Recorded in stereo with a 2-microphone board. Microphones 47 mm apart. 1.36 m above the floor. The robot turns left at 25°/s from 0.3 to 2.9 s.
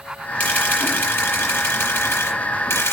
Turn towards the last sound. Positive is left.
turn(degrees=85)